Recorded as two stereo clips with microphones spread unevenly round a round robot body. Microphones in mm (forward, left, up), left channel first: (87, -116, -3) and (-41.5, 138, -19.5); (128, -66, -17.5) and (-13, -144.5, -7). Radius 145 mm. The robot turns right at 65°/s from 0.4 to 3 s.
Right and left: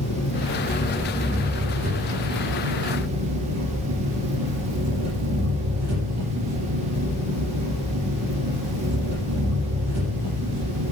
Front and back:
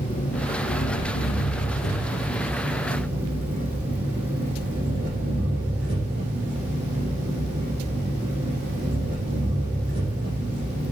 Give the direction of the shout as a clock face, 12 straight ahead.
I don't hear a shout.